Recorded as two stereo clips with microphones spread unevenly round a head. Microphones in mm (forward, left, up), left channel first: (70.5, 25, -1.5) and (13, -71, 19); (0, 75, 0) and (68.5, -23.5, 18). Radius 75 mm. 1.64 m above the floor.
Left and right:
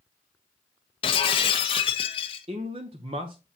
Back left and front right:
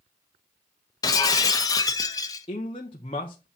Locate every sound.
1.0 s breaking glass: 75° left, 0.9 m
2.5 s a man speaking: 175° right, 0.9 m